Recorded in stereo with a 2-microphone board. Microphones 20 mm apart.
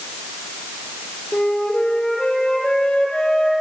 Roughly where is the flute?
Left.